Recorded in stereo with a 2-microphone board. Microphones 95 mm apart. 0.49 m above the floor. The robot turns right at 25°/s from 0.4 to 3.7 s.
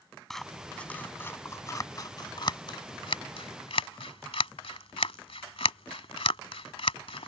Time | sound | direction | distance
0.3 | scissors | 5° left (ahead or behind) | ?